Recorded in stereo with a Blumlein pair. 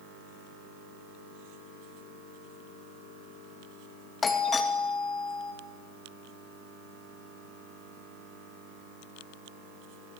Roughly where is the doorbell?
Ahead.